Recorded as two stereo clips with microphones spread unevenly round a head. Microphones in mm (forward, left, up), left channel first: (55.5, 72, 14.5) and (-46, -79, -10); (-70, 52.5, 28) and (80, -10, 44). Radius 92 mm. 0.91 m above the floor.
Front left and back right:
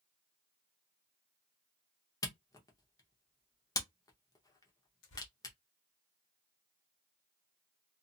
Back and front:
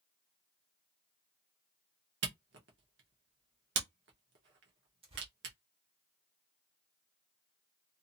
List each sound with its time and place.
2.2 s a camera shutter: 15° right, 0.9 m
5.0 s tearing paper: 35° left, 1.2 m